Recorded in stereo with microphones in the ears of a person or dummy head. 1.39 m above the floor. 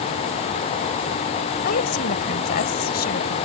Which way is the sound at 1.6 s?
50° left (ahead or behind).